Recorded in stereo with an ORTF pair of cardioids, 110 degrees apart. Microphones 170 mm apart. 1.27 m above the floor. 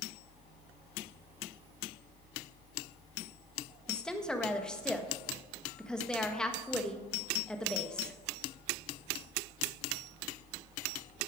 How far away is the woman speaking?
About 1.3 m.